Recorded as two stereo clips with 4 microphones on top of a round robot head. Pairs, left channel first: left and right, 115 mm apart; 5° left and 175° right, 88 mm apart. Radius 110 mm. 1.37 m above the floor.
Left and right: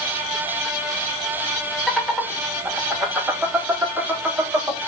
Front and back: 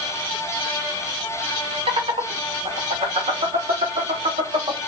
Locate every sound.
1.9 s laughter: 175° left, 3 m; by 4.8 s 165° right, 4.5 m